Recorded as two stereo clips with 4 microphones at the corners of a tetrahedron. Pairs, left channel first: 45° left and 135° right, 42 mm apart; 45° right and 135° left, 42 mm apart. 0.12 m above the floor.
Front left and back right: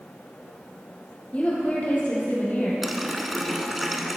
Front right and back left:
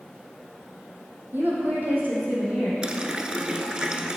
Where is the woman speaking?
100° left, 3 m; by 2.7 s 80° left, 4 m.